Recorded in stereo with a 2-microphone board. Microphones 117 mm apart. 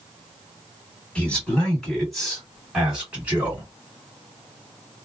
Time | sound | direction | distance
1.1 | a man speaking | 10° left (ahead or behind) | 1.5 m